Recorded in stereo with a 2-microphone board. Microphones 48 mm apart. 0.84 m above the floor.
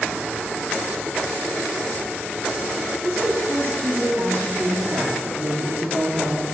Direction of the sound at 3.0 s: 35° right (ahead or behind).